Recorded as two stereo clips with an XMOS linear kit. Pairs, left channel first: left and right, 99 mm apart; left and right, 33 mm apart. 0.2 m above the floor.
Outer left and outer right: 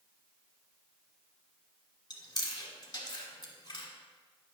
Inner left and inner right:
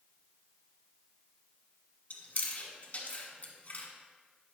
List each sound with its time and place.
2.1 s chewing: 45° left (ahead or behind), 1.5 m